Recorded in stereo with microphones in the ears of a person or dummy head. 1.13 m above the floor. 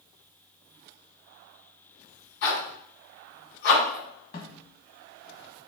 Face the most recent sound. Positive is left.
turn(degrees=40)  # may be behind; listen again after turning